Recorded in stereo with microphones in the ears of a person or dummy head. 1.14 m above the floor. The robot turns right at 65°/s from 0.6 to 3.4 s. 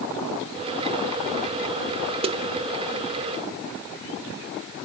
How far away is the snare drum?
About 0.7 m.